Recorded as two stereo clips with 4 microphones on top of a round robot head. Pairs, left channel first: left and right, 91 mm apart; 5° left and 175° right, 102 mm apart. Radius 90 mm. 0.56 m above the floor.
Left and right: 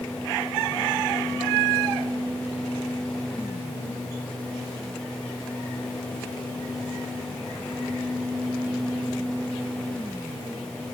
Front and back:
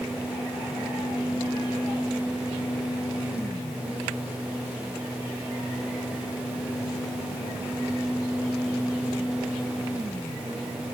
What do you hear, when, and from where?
Only background noise.